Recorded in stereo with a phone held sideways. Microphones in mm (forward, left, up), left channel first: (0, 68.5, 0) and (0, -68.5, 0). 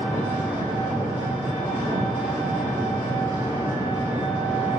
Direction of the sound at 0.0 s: 15° right (ahead or behind).